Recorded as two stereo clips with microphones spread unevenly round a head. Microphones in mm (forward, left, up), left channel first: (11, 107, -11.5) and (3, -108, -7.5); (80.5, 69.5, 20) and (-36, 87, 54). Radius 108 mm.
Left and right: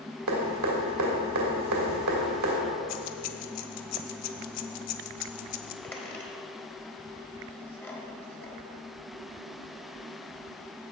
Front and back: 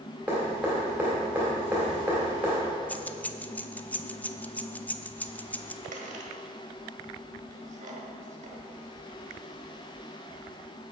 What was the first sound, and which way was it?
Dripping, 105° right.